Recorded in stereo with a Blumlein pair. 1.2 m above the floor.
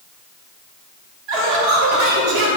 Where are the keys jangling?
I don't hear keys jangling.